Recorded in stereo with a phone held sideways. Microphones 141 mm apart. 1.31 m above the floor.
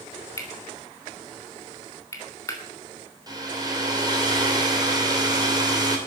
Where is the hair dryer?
30° right (ahead or behind), 3 m.